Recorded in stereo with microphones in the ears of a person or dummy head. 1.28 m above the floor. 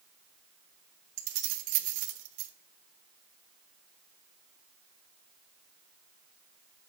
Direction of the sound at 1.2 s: 60° right (ahead or behind).